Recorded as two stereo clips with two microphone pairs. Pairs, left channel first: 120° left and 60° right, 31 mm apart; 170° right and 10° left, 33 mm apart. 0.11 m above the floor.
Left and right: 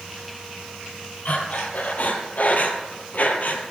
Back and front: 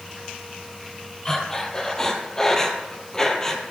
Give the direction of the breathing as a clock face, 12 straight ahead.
8 o'clock.